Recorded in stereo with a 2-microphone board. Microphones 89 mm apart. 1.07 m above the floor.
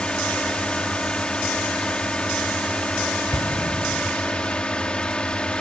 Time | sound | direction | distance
0.0 | a drone | 10° left (ahead or behind) | ?
3.3 | an explosion | 40° left (ahead or behind) | ?